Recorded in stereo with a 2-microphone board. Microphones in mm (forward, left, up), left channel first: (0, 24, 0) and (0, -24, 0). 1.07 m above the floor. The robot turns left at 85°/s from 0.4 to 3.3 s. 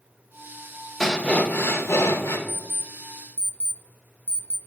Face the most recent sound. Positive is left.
turn(degrees=-30)  # may be behind; listen again after turning